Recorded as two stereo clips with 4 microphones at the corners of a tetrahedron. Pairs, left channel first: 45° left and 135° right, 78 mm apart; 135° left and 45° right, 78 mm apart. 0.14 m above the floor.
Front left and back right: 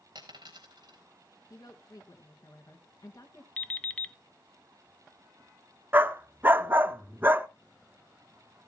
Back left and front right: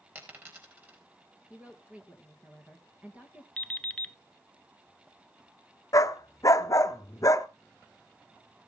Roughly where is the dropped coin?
Right.